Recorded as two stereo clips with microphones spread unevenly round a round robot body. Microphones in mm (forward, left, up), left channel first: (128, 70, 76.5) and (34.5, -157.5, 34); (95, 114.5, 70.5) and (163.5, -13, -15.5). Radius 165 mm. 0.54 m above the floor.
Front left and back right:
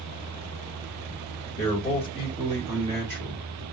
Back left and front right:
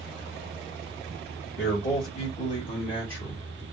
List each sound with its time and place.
1.6 s a man speaking: 150° left, 1.2 m; by 3.6 s 130° right, 1.7 m